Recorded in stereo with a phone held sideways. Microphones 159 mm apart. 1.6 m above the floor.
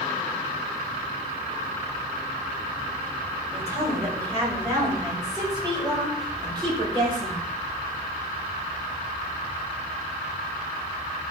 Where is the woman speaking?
20° right (ahead or behind), 7 m; by 7.4 s 35° right (ahead or behind), 7 m.